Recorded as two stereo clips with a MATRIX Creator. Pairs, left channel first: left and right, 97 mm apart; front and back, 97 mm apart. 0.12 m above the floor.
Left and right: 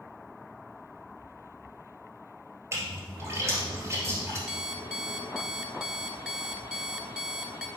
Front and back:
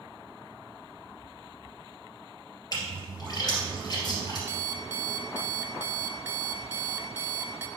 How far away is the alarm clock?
About 0.7 m.